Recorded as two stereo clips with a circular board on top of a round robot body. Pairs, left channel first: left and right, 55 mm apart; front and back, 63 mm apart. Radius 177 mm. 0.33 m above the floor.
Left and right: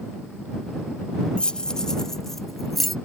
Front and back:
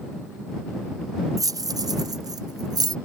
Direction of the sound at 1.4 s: 160° left.